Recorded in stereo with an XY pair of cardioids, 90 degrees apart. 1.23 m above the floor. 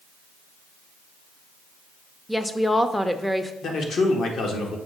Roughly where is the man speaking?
Ahead left.